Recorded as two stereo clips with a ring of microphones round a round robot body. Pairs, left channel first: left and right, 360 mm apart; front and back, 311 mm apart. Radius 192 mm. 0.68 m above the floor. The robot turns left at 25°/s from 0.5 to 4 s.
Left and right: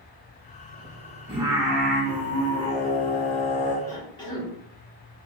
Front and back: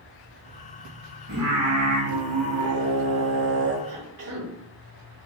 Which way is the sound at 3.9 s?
175° left.